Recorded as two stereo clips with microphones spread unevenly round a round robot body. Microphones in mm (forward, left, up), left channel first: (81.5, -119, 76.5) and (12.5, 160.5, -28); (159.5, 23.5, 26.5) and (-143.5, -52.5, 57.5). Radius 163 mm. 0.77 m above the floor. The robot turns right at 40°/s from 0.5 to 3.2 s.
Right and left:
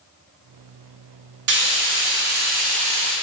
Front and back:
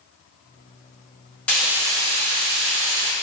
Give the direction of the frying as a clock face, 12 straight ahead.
9 o'clock.